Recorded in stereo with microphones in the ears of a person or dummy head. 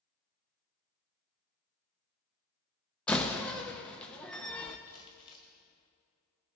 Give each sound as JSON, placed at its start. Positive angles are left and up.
{"t": 3.1, "sound": "a door slam", "side_deg": 5, "distance_m": 0.8}
{"t": 4.9, "sound": "crumpling", "side_deg": 20, "distance_m": 1.8}